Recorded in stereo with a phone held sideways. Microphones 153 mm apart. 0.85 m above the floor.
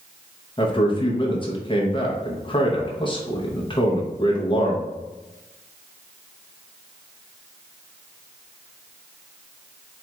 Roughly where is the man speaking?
Left.